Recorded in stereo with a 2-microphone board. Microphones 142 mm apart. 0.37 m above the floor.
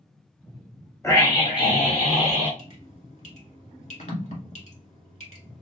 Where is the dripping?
55° left (ahead or behind), 1.9 m.